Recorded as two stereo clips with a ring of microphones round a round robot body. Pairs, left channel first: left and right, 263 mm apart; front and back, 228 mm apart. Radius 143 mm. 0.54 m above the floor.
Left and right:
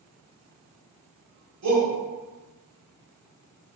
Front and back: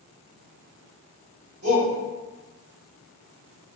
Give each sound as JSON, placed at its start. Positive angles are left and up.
{"t": 1.6, "sound": "a shout", "azimuth_deg": -125, "distance_m": 1.9}